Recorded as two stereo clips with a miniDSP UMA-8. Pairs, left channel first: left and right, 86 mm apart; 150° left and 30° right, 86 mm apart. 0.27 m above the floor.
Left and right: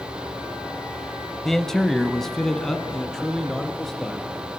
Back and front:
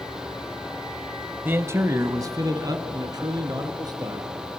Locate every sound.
1.4 s a man speaking: 10° left, 1.1 m; by 4.6 s 5° left, 4.5 m